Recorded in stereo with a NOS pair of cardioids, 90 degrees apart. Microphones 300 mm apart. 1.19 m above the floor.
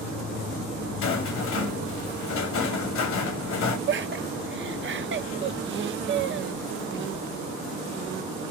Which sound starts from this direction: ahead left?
A rattle, at 1.0 s.